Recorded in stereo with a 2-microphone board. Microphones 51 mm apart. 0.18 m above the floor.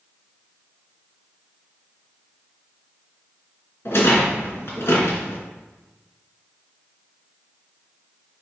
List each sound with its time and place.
3.9 s a rattle: 55° left (ahead or behind), 2.5 m